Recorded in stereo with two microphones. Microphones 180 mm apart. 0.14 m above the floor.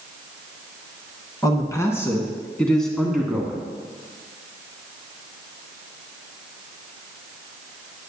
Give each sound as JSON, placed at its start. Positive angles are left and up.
{"t": 1.4, "sound": "a man speaking", "side_deg": 20, "distance_m": 1.4}